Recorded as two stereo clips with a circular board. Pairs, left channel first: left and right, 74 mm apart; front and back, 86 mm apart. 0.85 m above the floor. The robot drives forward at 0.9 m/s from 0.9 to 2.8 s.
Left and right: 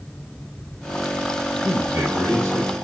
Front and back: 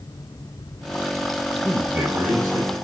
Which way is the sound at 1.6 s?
125° right.